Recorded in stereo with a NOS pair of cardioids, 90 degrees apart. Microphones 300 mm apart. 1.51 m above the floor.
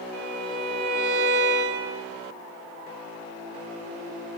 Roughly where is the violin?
Ahead right.